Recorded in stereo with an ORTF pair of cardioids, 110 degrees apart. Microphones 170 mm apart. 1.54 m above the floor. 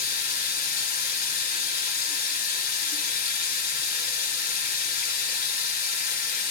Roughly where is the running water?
Ahead left.